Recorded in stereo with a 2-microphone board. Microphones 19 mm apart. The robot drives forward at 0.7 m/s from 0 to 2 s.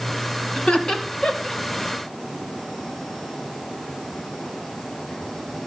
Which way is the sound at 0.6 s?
65° left (ahead or behind).